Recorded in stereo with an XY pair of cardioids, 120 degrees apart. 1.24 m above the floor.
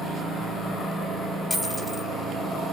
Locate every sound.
1.5 s a dropped coin: 15° left, 3.5 m